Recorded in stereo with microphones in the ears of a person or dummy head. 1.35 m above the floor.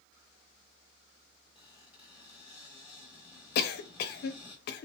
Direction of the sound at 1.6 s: 5° right (ahead or behind).